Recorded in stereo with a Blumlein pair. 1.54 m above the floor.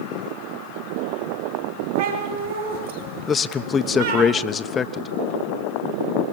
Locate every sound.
1.9 s a cat meowing: 65° right, 6.5 m
3.3 s a man speaking: 20° left, 1.2 m